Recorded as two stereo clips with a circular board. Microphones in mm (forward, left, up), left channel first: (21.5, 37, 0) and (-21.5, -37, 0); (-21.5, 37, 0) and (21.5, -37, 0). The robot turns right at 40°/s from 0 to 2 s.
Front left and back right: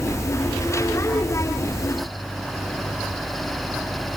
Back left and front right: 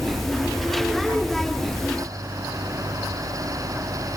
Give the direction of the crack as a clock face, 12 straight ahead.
I don't hear a crack.